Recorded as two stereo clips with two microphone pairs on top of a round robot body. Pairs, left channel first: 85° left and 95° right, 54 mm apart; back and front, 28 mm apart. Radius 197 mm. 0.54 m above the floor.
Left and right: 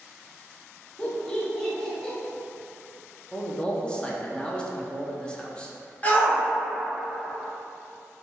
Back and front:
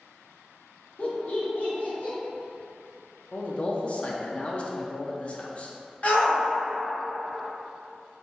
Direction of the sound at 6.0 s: 145° left.